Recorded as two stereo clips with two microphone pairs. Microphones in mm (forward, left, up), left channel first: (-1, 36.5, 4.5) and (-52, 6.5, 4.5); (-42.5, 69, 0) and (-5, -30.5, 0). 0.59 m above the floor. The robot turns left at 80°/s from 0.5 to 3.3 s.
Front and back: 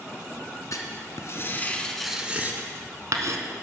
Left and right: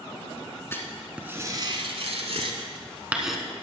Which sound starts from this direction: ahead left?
Writing, at 0.7 s.